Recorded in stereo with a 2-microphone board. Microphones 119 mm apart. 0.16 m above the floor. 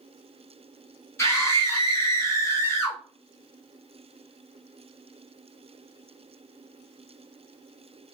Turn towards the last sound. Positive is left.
turn(degrees=25)  # may be behind; listen again after turning